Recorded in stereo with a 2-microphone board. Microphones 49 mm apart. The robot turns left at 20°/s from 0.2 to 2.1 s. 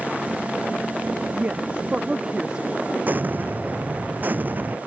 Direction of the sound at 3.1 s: 40° right (ahead or behind).